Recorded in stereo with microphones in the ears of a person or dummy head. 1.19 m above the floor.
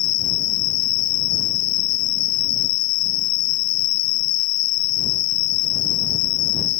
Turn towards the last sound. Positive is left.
turn(degrees=75)  # may be behind; listen again after turning